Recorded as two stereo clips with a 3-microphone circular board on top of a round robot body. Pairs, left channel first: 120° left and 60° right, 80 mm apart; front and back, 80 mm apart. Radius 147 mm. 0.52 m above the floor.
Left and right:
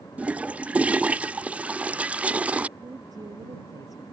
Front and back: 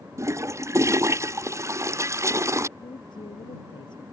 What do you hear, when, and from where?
0.2 s a toilet flushing: 130° right
2.8 s a woman speaking: 20° right